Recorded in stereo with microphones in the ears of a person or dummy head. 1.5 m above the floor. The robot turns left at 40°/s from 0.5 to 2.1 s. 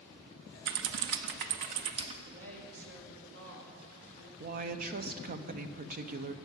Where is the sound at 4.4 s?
45° right (ahead or behind), 0.8 m.